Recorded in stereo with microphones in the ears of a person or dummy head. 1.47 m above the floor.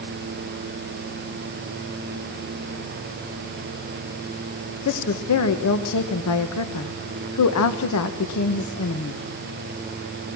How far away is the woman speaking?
About 1.4 m.